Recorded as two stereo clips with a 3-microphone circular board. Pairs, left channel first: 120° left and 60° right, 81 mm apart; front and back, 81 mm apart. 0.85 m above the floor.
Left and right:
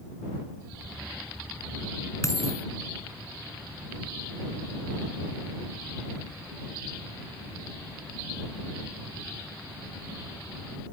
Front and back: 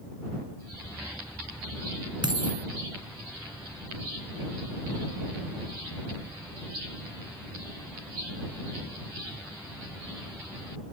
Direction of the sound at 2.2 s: 170° left.